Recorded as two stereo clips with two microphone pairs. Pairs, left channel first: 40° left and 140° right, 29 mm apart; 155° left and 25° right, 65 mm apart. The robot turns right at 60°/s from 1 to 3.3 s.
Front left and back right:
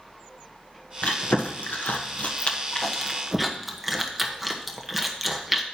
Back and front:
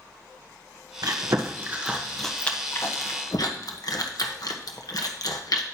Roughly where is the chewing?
Ahead.